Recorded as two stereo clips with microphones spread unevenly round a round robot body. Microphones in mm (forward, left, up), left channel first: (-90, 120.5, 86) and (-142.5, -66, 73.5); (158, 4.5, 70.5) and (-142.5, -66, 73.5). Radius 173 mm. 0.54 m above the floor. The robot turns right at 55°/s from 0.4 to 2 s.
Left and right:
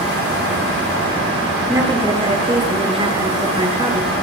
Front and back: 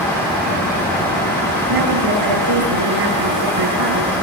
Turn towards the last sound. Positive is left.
turn(degrees=-170)